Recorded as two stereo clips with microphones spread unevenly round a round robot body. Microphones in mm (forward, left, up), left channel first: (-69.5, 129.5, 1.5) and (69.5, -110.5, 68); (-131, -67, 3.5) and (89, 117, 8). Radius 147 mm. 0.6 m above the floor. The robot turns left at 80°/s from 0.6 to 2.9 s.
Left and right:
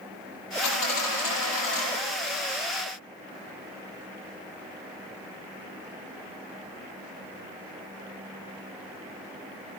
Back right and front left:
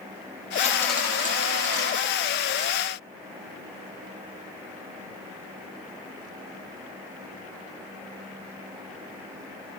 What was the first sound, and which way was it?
A dropped coin, 155° left.